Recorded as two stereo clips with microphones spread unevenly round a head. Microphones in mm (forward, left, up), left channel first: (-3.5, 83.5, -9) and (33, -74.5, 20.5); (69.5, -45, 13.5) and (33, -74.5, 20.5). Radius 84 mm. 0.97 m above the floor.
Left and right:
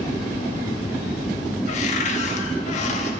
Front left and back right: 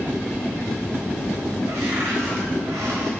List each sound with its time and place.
1.7 s a cupboard door: 155° left, 0.9 m